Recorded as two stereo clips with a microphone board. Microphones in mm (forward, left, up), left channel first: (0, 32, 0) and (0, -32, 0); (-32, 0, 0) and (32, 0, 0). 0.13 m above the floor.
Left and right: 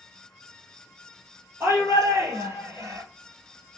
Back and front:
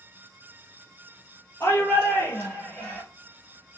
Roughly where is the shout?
Behind right.